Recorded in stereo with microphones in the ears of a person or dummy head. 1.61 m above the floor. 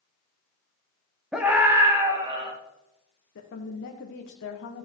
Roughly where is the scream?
Centre.